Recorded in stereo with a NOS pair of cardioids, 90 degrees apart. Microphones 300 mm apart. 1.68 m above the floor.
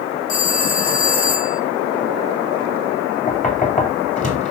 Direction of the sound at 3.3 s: 25° left.